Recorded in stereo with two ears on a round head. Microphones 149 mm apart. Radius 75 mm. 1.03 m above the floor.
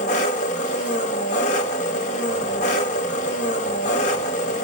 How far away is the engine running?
About 1.3 m.